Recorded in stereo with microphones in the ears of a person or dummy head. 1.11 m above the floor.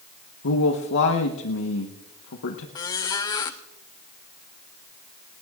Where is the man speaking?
65° left (ahead or behind), 1.2 m.